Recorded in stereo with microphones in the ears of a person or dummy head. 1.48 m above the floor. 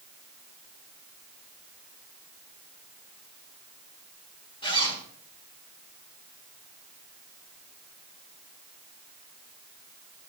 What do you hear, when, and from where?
4.6 s a zipper: 20° left (ahead or behind), 1.2 m